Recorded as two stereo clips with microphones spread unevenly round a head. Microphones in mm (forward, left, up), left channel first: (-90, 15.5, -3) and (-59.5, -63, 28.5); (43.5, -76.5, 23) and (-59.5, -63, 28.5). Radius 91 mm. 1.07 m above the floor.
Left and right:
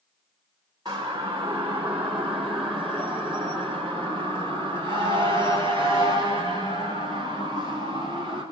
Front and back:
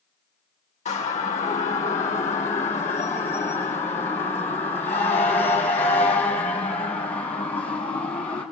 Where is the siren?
Straight ahead, 3.5 m; by 8.4 s 50° left, 7 m.